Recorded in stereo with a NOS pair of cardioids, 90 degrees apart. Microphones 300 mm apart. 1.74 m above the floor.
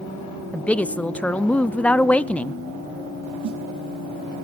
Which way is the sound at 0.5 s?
5° left.